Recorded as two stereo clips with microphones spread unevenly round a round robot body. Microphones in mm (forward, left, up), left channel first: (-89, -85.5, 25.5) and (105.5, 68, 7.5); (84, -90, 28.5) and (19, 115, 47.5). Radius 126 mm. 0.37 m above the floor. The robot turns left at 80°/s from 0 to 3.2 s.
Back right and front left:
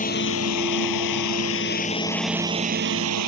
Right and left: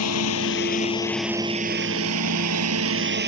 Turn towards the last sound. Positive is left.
turn(degrees=70)